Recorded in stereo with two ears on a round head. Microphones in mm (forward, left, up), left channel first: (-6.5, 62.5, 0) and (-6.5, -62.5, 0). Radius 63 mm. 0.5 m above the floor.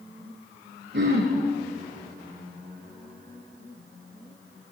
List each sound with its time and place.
0.9 s throat clearing: 80° right, 6.5 m